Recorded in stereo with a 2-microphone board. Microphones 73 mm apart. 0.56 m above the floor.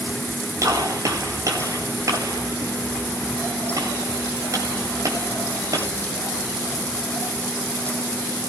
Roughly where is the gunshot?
Right.